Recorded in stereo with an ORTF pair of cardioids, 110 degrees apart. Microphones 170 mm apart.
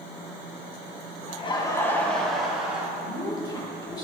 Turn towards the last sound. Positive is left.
turn(degrees=25)